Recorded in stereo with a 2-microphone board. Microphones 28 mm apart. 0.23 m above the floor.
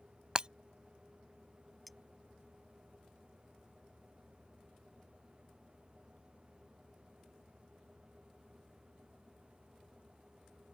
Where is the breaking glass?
30° right (ahead or behind).